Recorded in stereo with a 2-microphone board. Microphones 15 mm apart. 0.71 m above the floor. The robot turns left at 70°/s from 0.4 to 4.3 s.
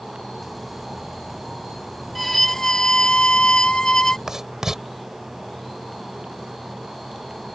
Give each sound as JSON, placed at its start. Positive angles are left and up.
{"t": 2.1, "sound": "a violin", "azimuth_deg": 180}
{"t": 4.3, "sound": "writing", "side_deg": -35}